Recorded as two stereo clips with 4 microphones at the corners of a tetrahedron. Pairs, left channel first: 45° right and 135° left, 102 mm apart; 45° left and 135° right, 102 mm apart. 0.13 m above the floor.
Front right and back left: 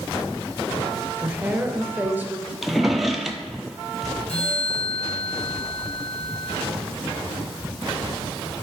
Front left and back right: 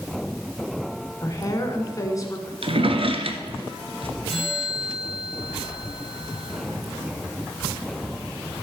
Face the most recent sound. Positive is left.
turn(degrees=-50)